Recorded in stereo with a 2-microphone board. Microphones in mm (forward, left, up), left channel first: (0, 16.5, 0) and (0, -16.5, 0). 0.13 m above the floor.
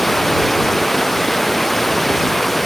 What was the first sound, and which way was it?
Running water, 10° left (ahead or behind).